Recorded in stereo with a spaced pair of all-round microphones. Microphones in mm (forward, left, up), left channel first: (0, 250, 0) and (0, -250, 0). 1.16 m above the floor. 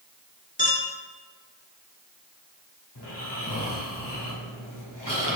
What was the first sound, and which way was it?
A clink, 15° left (ahead or behind).